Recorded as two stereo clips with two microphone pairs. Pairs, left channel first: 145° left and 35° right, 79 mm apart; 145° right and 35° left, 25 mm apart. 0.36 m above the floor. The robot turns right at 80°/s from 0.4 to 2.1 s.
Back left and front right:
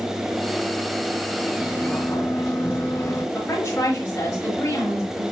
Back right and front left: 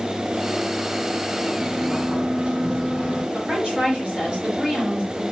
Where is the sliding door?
45° left, 5 m; by 3.2 s 85° left, 5 m.